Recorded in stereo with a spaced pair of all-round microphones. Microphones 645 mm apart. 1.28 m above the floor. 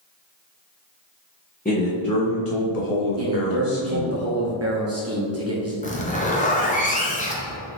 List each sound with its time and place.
1.6 s a man speaking: 15° left (ahead or behind), 0.8 m; by 4.2 s 65° left (ahead or behind), 1.4 m
3.2 s a man speaking: 25° right (ahead or behind), 0.6 m
5.8 s a zipper: 15° left (ahead or behind), 0.7 m